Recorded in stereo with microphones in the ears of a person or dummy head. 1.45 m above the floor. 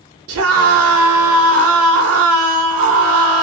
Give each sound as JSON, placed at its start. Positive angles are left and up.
{"t": 0.3, "sound": "a scream", "side_deg": -70, "distance_m": 1.0}